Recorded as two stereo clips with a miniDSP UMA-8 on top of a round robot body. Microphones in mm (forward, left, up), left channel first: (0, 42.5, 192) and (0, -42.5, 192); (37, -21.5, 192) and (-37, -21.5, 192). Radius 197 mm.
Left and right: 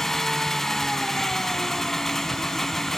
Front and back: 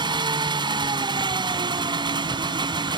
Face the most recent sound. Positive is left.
turn(degrees=175)